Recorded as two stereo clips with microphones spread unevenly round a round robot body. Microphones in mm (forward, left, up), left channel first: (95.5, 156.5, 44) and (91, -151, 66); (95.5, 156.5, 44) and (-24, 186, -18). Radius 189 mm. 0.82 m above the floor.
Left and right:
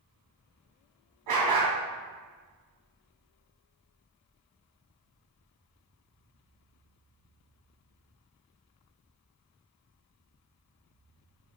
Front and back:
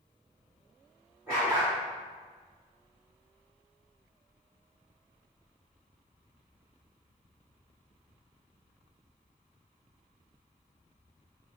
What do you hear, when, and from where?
1.3 s a dog barking: 95° right, 2 m